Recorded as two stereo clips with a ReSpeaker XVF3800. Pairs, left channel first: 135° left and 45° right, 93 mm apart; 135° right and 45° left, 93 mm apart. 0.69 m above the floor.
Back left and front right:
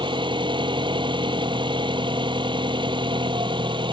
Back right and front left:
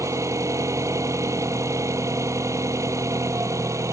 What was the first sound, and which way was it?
An engine running, 15° right.